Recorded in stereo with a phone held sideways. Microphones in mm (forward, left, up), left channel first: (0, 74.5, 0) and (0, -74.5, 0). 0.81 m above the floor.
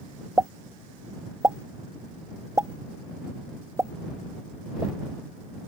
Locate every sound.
0.4 s a pop: 20° right (ahead or behind)